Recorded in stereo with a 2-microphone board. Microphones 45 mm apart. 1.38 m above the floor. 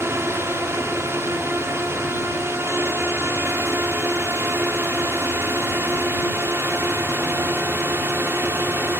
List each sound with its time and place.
0.0 s a drone: 70° right (ahead or behind); by 9.0 s 65° right (ahead or behind)